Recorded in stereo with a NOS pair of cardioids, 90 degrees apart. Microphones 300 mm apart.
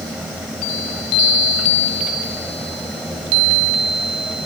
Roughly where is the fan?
Ahead.